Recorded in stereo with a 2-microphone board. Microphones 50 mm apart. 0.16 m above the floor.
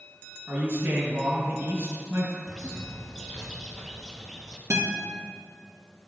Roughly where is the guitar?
Right.